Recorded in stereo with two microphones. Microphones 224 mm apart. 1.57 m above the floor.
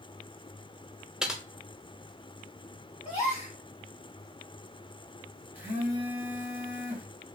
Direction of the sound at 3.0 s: 30° left (ahead or behind).